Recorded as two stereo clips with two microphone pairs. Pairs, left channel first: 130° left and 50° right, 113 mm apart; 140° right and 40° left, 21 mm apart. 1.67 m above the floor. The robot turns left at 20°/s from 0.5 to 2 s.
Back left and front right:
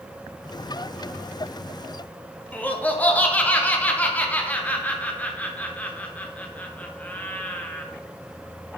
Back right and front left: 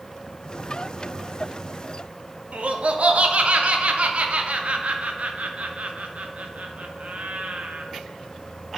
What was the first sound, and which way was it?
Laughter, 55° left.